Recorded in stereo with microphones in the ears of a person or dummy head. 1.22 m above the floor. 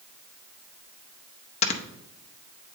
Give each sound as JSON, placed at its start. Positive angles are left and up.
{"t": 1.6, "sound": "snoring", "side_deg": 35, "distance_m": 0.6}